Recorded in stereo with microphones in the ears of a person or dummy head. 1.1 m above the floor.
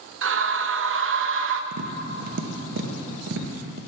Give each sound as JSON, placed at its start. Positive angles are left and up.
{"t": 0.2, "sound": "a scream", "side_deg": -60, "distance_m": 0.6}
{"t": 1.7, "sound": "tapping", "side_deg": -65, "distance_m": 0.8}